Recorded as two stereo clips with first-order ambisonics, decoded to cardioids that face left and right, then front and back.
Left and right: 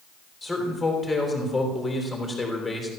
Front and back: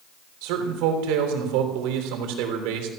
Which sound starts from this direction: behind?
A man speaking, at 0.4 s.